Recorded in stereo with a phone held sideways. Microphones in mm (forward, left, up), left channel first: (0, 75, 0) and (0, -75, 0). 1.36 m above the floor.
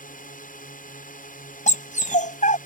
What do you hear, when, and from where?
0.0 s a drone: 65° left (ahead or behind)
1.7 s a dog barking: 60° left (ahead or behind)